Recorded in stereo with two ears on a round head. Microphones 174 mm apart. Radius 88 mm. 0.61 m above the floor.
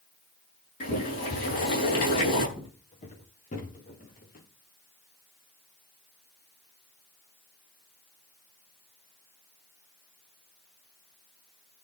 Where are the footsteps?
30° left (ahead or behind), 6 m; by 4.5 s 50° left (ahead or behind), 7 m.